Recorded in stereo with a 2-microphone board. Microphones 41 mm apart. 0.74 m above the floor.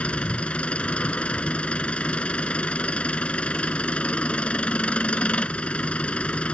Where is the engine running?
30° left (ahead or behind).